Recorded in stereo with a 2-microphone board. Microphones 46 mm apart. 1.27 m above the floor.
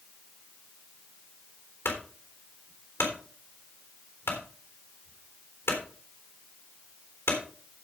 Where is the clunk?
75° left (ahead or behind), 3.5 m.